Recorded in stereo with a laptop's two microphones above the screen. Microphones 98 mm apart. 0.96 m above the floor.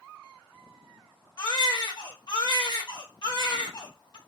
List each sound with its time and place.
1.4 s a baby crying: 50° left (ahead or behind), 0.7 m